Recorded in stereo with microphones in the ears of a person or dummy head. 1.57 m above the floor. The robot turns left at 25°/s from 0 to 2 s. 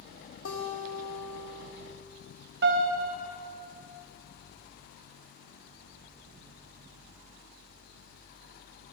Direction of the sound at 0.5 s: 110° left.